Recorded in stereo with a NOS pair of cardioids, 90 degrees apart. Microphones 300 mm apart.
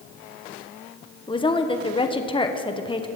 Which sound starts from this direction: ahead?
A woman speaking, at 1.3 s.